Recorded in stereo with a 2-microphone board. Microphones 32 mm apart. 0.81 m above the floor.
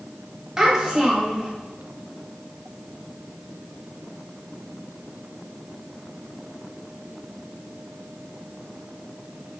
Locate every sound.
0.6 s a child speaking: 15° right (ahead or behind), 0.8 m